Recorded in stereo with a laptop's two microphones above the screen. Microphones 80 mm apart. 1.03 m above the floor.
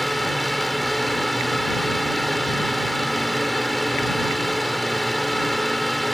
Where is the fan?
Centre (ahead or behind).